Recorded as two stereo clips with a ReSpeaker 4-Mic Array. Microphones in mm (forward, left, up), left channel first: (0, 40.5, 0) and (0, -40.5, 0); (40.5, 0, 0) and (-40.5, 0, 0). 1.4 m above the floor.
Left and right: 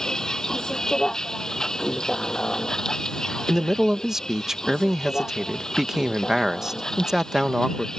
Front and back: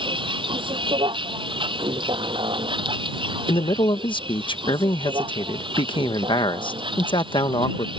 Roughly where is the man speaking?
Ahead.